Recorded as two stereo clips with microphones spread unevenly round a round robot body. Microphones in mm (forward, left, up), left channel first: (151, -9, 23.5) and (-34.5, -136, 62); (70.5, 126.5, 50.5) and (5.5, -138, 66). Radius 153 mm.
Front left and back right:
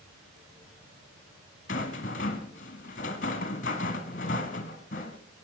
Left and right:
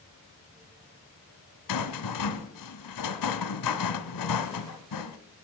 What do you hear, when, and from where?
1.7 s a rattle: 105° left, 1.0 m